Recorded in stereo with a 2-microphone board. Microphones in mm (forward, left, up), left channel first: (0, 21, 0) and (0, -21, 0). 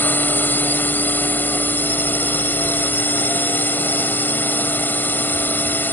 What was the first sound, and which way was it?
A drone, 50° left (ahead or behind).